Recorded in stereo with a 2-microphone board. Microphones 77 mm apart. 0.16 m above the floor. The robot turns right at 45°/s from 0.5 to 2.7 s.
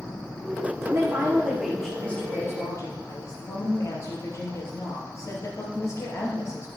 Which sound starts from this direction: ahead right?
A woman speaking, at 0.8 s.